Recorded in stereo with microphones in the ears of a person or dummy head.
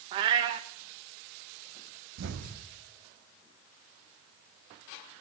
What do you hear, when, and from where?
0.1 s a cat meowing: 20° right (ahead or behind), 0.6 m
2.2 s an explosion: 65° right (ahead or behind), 0.9 m